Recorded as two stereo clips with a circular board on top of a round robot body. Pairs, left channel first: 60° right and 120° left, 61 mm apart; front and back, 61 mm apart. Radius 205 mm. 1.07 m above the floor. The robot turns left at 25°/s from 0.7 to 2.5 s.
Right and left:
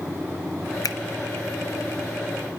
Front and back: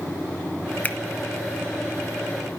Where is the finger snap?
65° right, 0.9 m.